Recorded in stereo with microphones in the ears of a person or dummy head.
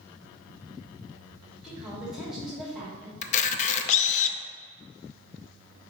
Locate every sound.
1.6 s a woman speaking: centre (ahead or behind), 2.5 m
3.2 s a camera shutter: 40° left (ahead or behind), 0.5 m